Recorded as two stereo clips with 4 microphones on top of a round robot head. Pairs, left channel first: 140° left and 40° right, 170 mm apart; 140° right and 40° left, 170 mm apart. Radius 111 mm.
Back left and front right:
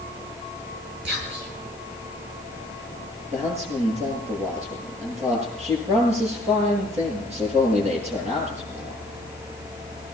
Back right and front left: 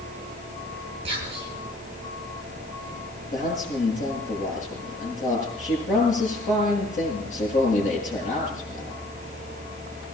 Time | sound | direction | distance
1.1 | whispering | 20° right | 8 m
3.3 | a man speaking | 95° right | 9 m